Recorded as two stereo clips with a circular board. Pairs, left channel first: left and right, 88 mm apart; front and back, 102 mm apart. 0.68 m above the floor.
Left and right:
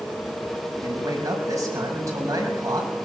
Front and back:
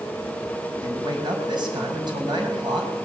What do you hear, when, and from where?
0.8 s a man speaking: 140° right, 5.5 m